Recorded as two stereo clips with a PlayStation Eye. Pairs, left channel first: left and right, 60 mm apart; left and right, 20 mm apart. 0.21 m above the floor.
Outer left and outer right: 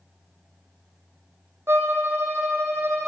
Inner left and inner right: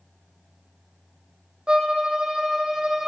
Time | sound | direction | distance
1.7 | a violin | 40° right (ahead or behind) | 1.9 m